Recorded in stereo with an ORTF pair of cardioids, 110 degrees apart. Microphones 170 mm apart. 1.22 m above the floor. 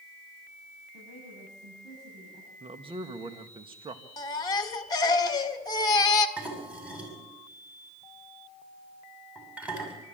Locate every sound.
0.9 s a woman speaking: 55° right, 9.5 m
2.6 s a man speaking: 30° right, 1.7 m
4.2 s a baby crying: 25° left, 1.7 m
6.4 s dishes clattering: 10° right, 6.5 m